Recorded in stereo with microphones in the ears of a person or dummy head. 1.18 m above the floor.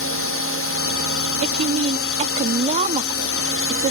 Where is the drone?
60° left (ahead or behind).